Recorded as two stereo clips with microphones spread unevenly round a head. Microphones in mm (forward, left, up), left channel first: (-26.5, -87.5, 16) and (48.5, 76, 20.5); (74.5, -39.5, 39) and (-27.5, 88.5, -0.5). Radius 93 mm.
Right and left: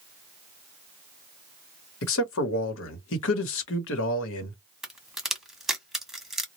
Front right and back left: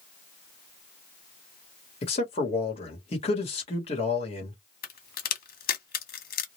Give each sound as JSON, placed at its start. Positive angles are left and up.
{"t": 2.0, "sound": "a man speaking", "azimuth_deg": -115, "distance_m": 1.0}
{"t": 4.8, "sound": "a crack", "azimuth_deg": -25, "distance_m": 1.0}